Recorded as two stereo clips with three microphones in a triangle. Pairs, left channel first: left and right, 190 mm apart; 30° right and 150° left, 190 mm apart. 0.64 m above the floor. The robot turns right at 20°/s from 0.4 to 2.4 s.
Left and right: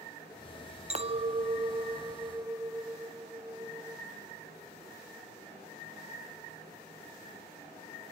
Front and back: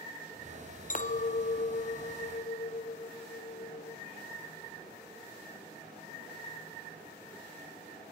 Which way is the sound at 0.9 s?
50° right.